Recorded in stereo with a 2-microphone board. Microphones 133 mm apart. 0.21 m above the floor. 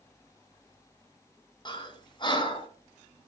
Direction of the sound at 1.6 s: 35° left (ahead or behind).